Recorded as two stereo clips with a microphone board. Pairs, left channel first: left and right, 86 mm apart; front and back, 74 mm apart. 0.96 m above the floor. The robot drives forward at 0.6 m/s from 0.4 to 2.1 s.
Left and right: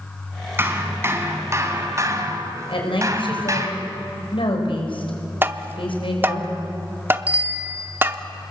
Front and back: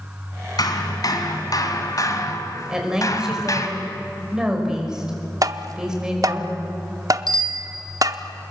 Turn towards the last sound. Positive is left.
turn(degrees=-160)